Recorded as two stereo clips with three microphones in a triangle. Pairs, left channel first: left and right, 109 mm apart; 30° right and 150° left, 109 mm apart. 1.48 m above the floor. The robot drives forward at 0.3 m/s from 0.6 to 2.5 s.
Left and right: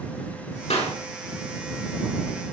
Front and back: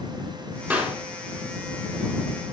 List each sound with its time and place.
0.7 s a clap: 80° left, 4 m